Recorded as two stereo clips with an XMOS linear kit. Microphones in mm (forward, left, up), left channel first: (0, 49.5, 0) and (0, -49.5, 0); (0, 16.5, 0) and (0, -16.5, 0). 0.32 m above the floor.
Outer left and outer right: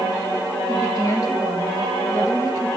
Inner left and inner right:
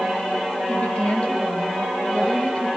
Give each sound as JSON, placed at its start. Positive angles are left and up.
{"t": 0.7, "sound": "a woman speaking", "side_deg": 35, "distance_m": 1.6}